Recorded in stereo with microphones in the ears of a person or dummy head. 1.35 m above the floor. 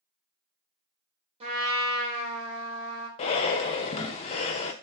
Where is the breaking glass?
No breaking glass in this recording.